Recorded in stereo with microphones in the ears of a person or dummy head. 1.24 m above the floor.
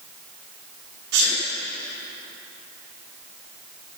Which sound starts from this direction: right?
A sneeze, at 1.1 s.